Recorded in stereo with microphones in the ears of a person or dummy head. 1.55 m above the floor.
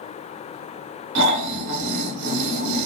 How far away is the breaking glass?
I don't hear breaking glass.